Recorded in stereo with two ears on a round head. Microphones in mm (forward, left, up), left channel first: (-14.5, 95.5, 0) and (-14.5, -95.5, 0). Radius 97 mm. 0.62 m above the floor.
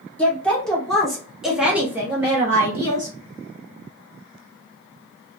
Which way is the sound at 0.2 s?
5° left (ahead or behind).